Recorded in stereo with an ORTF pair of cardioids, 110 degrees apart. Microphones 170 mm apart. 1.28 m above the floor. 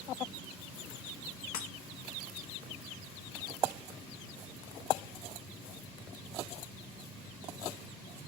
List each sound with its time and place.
1.5 s breaking glass: 65° left, 1.3 m